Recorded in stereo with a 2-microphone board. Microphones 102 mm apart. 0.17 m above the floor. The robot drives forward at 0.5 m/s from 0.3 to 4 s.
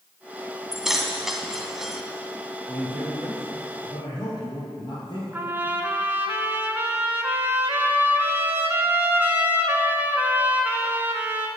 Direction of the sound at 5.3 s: 20° right (ahead or behind).